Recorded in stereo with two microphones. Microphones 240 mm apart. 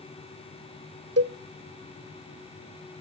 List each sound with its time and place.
1.2 s a cowbell: 70° right (ahead or behind), 0.7 m